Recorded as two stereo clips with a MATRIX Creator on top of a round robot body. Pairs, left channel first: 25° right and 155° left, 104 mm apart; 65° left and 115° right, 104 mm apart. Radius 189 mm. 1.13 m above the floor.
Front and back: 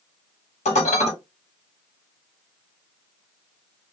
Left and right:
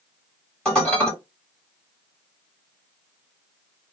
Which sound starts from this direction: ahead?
Dishes clattering, at 0.7 s.